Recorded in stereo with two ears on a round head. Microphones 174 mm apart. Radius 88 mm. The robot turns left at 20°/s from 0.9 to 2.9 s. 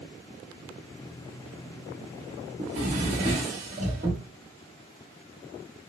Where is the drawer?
35° right (ahead or behind), 1.2 m; by 4.2 s 40° right (ahead or behind), 1.2 m.